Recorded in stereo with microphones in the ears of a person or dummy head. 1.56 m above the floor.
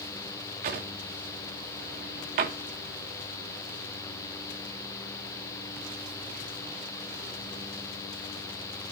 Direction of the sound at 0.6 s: 40° right (ahead or behind).